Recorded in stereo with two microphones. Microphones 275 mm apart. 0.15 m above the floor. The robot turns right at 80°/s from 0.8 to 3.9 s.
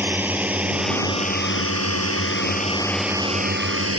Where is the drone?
5° right (ahead or behind); by 4.0 s 60° right (ahead or behind).